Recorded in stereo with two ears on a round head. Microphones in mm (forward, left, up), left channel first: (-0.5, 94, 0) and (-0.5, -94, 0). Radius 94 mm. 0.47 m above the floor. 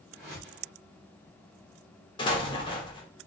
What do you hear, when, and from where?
0.1 s a whoosh: 5° left (ahead or behind), 1.7 m
2.2 s an explosion: 25° left (ahead or behind), 0.6 m